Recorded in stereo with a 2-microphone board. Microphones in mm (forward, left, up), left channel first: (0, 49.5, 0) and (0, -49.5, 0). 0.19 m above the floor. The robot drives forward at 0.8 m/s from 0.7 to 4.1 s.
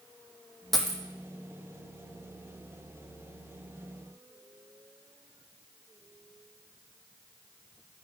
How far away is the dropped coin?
About 0.7 m.